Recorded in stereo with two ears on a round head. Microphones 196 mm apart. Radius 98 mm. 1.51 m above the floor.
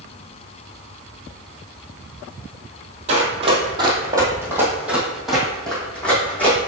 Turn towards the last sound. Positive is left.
turn(degrees=10)  # may be behind; listen again after turning